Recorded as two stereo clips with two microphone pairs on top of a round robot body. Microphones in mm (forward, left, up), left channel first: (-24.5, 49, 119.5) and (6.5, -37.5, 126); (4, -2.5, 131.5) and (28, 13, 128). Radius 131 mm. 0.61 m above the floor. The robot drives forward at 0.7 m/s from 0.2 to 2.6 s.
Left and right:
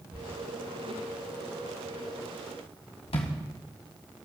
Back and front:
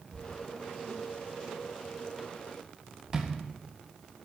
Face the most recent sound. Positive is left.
turn(degrees=95)